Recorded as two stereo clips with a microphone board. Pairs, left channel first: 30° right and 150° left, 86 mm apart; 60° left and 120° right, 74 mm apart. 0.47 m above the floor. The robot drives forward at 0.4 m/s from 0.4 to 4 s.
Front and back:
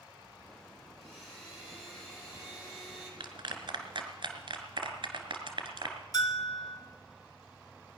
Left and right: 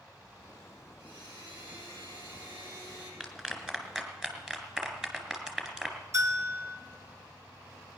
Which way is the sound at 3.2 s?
160° left.